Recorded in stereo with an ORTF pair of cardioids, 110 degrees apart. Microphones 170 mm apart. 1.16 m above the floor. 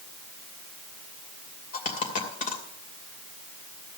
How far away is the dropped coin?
About 2.5 m.